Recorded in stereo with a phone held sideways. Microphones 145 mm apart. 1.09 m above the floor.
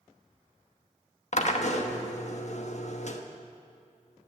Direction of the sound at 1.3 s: 50° left (ahead or behind).